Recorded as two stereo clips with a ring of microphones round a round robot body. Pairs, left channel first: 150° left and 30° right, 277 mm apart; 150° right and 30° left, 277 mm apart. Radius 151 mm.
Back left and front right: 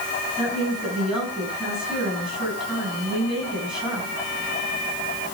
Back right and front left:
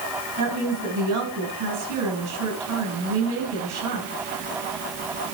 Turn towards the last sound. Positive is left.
turn(degrees=60)